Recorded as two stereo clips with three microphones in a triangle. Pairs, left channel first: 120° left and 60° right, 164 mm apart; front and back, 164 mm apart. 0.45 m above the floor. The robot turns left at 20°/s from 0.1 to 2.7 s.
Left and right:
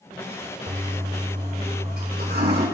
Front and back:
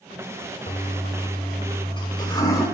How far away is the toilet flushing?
About 5 m.